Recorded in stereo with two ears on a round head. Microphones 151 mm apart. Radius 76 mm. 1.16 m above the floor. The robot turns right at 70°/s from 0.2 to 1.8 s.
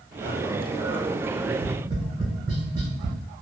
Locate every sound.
1.5 s tapping: 20° right (ahead or behind), 1.7 m; by 3.2 s 35° right (ahead or behind), 1.7 m